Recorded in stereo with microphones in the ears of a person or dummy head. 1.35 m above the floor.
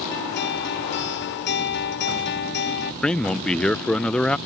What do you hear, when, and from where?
0.1 s a guitar: 50° left (ahead or behind)
3.0 s a man speaking: 5° left (ahead or behind)